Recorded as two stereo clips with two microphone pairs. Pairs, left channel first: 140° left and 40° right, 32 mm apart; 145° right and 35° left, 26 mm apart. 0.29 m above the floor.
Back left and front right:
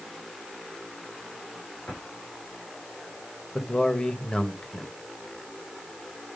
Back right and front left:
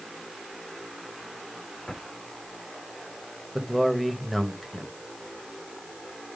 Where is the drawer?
130° left, 5 m.